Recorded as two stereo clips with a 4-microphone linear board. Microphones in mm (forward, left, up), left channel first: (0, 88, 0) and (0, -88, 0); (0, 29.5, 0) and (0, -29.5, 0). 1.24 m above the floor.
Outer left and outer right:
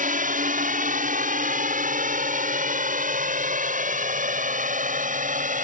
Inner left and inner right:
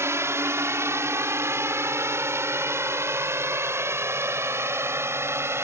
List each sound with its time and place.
0.0 s a drone: 50° right (ahead or behind); by 5.7 s 45° right (ahead or behind)